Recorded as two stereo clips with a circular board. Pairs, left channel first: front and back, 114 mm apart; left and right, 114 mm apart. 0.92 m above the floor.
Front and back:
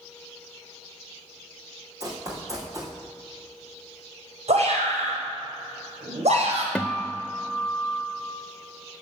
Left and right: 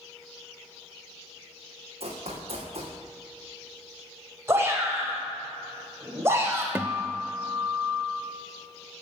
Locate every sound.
2.0 s running footsteps: 120° right, 4 m
4.5 s a shout: 155° right, 5.5 m
6.8 s a guitar: 65° right, 0.6 m